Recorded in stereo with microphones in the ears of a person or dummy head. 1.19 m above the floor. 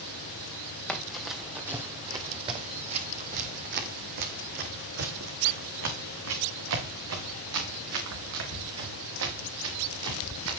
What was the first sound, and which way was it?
Running footsteps, 5° left (ahead or behind).